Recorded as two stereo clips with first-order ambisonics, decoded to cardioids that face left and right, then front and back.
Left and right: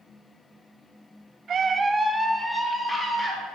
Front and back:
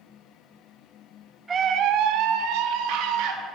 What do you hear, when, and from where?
1.5 s a scream: 120° right, 0.5 m; by 3.4 s 170° left, 2 m